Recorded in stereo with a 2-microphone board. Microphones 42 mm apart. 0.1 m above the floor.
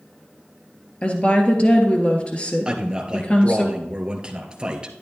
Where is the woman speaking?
30° left (ahead or behind), 1.6 m.